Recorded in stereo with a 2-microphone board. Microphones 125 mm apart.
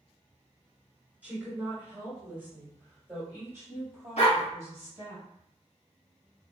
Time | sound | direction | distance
1.2 | a woman speaking | 10° right (ahead or behind) | 2 m
4.2 | a dog barking | 60° left (ahead or behind) | 2 m